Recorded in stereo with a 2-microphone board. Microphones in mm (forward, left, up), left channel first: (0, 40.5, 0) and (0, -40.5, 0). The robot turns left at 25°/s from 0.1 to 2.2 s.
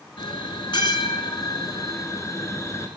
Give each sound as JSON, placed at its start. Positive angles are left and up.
{"t": 0.2, "sound": "a bell", "azimuth_deg": 90, "distance_m": 0.9}